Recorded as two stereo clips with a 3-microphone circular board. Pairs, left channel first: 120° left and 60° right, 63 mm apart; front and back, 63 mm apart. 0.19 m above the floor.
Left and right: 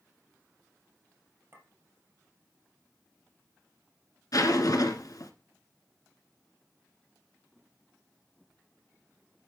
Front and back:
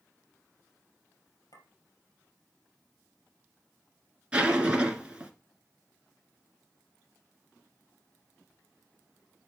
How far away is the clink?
About 3 m.